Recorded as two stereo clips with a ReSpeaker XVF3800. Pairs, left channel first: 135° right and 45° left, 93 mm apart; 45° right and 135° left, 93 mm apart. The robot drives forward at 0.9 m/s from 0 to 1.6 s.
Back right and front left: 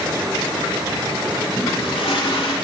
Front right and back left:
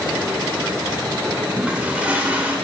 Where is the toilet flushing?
150° right, 1.5 m.